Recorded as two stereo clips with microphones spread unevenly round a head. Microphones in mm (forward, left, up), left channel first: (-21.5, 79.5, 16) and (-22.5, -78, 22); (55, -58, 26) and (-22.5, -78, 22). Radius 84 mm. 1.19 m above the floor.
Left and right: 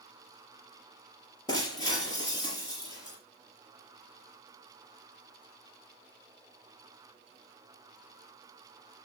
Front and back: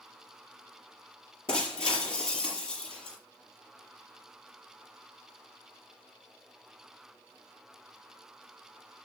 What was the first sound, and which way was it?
Breaking glass, 20° left.